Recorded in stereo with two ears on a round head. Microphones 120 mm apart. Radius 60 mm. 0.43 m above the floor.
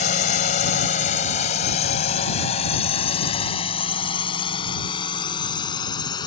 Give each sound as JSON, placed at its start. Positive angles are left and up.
{"t": 0.0, "sound": "a drone", "side_deg": 60}